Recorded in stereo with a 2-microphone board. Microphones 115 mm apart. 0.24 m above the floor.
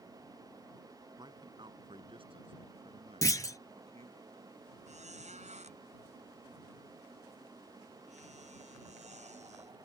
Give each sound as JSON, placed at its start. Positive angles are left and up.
{"t": 1.2, "sound": "a man speaking", "side_deg": -40}
{"t": 3.2, "sound": "a clunk", "side_deg": 30}
{"t": 4.9, "sound": "a squeak", "side_deg": -85}